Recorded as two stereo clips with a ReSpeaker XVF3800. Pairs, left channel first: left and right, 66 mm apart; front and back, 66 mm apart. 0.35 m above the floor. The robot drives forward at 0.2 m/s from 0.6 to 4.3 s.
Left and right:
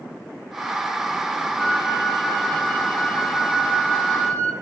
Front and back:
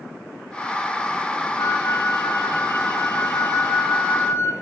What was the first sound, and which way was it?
A flute, 20° left.